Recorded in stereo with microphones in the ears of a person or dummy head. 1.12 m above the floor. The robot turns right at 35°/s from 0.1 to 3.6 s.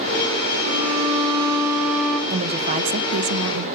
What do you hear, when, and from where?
0.6 s a violin: 50° right, 1.8 m; by 2.2 s 5° left, 1.8 m
2.3 s a woman speaking: 155° right, 0.7 m; by 3.7 s 110° right, 0.7 m